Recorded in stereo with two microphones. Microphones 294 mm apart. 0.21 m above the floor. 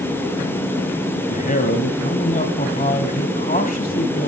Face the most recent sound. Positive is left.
turn(degrees=30)  # may be behind; listen again after turning